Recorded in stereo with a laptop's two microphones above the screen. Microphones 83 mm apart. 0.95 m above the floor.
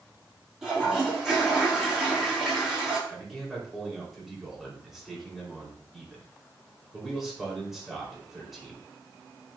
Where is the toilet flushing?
5° right (ahead or behind), 5 m.